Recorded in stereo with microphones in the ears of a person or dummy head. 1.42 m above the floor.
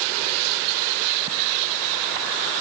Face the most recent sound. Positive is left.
No sound to turn to.